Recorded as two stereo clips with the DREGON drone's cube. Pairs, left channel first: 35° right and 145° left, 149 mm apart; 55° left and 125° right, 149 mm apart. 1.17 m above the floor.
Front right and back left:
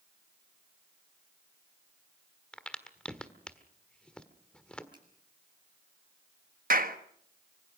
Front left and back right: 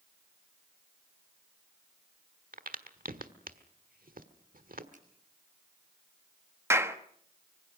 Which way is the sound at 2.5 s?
120° right.